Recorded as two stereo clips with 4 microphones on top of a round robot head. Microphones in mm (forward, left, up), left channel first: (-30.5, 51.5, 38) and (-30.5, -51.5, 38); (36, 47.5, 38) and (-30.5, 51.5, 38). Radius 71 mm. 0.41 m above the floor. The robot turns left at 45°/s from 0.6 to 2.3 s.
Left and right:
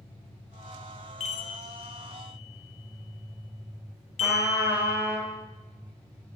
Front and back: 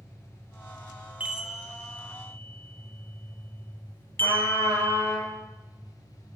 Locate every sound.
0.0 s an engine running: 45° left, 2 m; by 6.4 s 30° right, 2 m
1.2 s a chime: 105° left, 0.9 m; by 5.2 s 55° left, 0.9 m
4.2 s a trumpet: 20° right, 4.5 m